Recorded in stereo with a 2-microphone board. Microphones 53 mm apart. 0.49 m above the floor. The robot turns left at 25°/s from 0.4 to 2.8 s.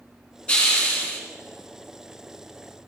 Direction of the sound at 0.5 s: 20° left (ahead or behind).